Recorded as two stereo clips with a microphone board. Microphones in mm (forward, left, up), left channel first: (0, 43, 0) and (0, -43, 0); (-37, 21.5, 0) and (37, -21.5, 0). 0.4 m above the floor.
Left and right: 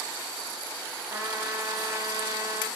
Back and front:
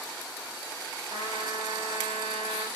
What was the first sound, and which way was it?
A trumpet, 35° right.